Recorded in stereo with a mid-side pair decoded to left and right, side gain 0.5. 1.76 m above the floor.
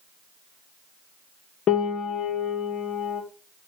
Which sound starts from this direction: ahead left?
A piano, at 1.7 s.